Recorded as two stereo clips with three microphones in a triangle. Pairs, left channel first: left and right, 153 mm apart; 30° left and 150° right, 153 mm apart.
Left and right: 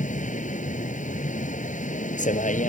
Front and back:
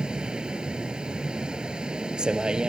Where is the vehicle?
125° left.